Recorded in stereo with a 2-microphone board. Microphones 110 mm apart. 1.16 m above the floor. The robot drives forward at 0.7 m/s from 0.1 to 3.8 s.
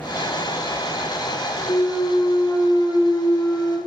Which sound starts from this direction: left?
A clunk, at 1.7 s.